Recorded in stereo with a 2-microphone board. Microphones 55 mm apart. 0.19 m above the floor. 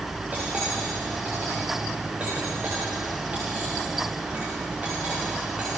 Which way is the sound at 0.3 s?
30° right (ahead or behind).